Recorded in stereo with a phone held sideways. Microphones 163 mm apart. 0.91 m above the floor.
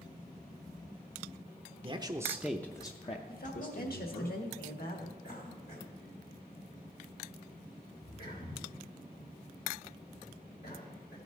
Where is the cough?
70° left (ahead or behind), 3.5 m.